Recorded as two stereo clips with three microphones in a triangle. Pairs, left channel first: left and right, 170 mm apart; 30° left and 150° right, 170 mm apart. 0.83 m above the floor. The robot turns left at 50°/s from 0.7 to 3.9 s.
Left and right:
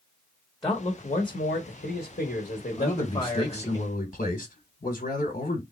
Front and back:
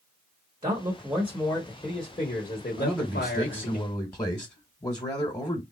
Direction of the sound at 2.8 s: 145° left.